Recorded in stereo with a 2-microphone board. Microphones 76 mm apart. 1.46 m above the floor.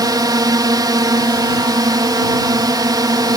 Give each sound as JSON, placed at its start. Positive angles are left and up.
{"t": 0.0, "sound": "a drone", "side_deg": -60}